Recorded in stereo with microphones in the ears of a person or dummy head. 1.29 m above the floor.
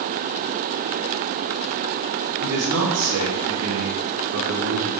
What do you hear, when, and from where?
2.4 s a man speaking: 85° right, 2 m; by 4.9 s 50° right (ahead or behind), 1.5 m